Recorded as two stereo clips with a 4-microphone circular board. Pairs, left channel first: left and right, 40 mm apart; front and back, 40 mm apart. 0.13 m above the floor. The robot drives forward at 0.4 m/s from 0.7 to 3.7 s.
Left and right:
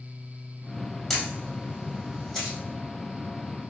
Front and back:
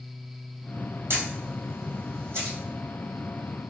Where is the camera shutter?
170° left, 1.3 m; by 2.6 s 175° left, 1.8 m.